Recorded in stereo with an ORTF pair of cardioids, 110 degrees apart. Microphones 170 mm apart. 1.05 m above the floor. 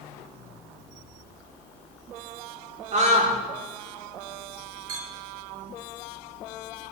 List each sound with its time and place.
2.9 s a scream: 40° right, 3.5 m
4.9 s a clink: 55° right, 1.8 m